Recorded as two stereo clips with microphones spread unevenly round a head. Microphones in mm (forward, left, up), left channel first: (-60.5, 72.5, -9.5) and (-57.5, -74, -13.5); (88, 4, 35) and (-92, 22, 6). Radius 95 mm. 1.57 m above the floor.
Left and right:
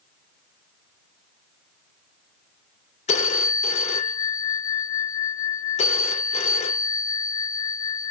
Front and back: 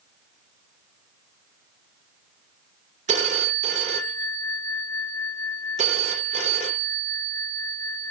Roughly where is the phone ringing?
Behind left.